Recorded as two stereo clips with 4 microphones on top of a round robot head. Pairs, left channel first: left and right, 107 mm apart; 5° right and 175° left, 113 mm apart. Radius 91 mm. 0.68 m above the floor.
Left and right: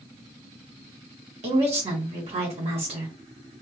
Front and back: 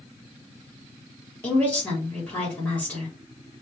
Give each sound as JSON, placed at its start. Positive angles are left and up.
{"t": 1.4, "sound": "a woman speaking", "azimuth_deg": -85, "distance_m": 1.5}